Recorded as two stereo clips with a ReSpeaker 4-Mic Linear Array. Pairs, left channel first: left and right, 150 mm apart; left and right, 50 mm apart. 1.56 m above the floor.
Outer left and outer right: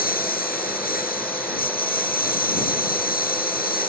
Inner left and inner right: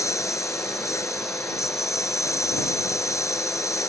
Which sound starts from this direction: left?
A lawn mower, at 0.0 s.